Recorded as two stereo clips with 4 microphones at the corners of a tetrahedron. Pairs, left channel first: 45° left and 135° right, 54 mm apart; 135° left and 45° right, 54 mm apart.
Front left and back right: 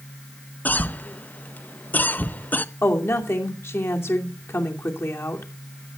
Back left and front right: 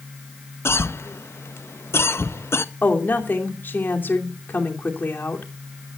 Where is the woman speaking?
85° left, 2.5 m.